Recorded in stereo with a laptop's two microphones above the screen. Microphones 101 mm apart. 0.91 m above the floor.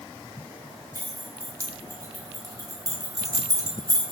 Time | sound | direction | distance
0.9 | keys jangling | 35° right (ahead or behind) | 1.9 m